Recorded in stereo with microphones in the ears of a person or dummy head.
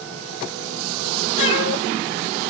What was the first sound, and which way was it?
A cat meowing, 75° left (ahead or behind).